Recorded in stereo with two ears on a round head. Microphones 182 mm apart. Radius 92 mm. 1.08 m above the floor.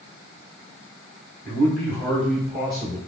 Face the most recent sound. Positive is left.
turn(degrees=0)  # may be behind; listen again after turning